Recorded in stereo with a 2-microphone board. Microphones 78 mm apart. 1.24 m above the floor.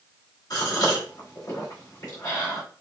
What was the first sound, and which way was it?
A gasp, 55° left (ahead or behind).